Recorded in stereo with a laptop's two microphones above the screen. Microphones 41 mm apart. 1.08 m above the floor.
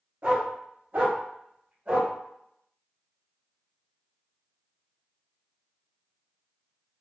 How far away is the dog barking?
About 1.0 m.